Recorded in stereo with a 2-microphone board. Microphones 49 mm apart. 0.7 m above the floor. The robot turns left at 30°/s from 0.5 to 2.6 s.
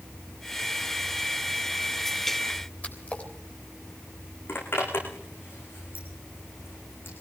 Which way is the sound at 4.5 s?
50° left (ahead or behind).